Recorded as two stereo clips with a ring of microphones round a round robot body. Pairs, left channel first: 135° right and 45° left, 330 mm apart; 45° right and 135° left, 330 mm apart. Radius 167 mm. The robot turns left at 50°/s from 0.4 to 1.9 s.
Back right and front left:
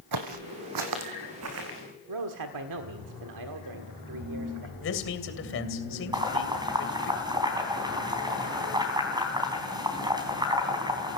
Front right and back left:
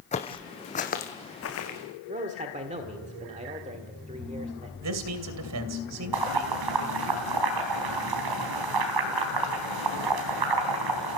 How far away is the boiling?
About 4 m.